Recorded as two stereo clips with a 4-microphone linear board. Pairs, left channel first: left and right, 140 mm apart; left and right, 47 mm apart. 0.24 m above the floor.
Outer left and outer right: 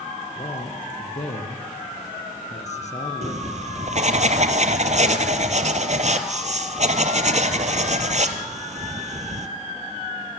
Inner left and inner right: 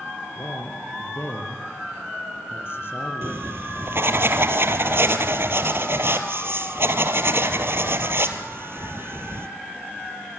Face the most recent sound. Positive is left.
turn(degrees=-55)  # may be behind; listen again after turning